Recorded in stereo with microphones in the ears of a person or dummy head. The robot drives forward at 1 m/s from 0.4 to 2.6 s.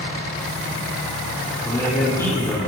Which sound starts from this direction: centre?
A man speaking, at 1.6 s.